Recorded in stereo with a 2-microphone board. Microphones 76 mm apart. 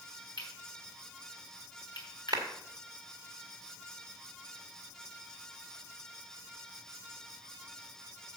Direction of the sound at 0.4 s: 75° left (ahead or behind).